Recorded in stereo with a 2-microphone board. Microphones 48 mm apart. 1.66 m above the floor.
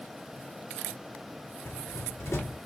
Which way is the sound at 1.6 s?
85° left.